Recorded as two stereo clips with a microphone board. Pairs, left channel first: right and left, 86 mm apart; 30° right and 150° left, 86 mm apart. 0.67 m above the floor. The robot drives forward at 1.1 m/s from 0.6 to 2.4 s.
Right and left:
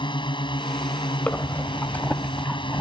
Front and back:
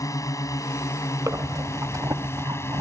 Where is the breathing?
160° right; by 2.8 s 165° right.